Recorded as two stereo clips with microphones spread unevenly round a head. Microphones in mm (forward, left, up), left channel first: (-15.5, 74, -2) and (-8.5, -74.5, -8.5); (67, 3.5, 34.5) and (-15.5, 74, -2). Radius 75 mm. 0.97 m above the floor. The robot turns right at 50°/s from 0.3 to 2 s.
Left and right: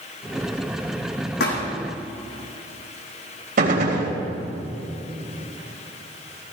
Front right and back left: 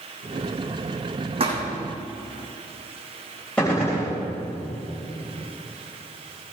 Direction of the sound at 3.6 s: 120° right.